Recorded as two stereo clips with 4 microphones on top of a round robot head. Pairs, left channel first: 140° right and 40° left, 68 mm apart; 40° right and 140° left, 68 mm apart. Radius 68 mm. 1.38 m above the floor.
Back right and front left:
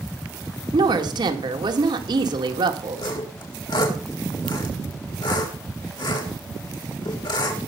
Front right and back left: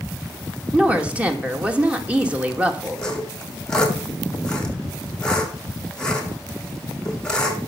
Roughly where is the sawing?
Behind right.